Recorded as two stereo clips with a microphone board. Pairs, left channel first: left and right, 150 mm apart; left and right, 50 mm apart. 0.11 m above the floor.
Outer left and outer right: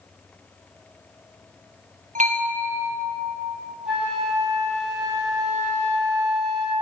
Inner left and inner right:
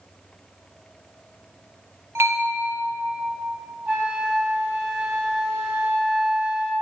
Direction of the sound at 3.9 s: Centre (ahead or behind).